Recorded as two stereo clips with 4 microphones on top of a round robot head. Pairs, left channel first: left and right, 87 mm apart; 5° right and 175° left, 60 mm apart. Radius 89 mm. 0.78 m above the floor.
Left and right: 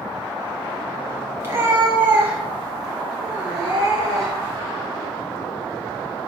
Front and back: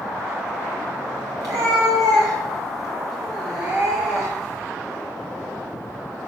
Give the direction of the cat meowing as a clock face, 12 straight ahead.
5 o'clock.